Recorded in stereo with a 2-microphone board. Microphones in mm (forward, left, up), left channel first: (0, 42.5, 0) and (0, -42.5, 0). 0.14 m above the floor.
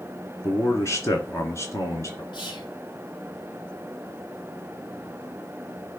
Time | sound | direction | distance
0.4 | a man speaking | 35° left (ahead or behind) | 2 m
2.3 | whispering | 60° left (ahead or behind) | 3.5 m